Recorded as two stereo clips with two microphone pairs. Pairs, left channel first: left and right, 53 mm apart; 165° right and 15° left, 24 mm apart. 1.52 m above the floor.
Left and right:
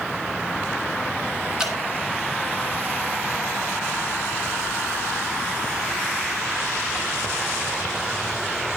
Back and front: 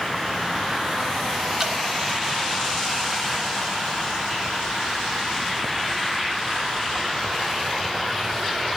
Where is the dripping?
25° right, 0.9 m.